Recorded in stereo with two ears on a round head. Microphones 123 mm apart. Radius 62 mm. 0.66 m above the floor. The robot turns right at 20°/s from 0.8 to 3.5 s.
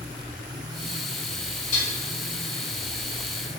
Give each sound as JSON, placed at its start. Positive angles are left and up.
{"t": 1.7, "sound": "dishes clattering", "side_deg": 65, "distance_m": 1.7}